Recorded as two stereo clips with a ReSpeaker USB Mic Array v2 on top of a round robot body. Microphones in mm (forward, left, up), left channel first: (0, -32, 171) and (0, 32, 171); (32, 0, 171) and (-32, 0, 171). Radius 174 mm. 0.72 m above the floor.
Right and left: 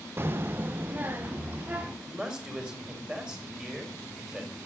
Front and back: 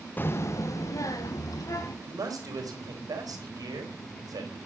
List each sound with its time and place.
0.2 s a child speaking: 50° left, 0.5 m; by 1.9 s 25° left, 2 m
2.0 s a man speaking: 165° left, 4 m